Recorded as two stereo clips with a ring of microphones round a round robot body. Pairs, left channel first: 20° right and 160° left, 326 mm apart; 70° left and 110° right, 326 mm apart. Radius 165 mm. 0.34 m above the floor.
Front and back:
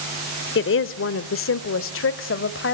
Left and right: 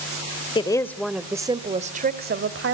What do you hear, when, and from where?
0.6 s a woman speaking: straight ahead, 1.1 m; by 2.8 s 70° right, 1.6 m